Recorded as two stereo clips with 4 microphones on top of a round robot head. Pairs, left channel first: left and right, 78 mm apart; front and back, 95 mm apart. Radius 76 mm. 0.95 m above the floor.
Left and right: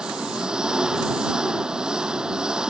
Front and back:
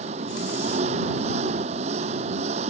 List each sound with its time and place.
0.0 s an engine running: 170° right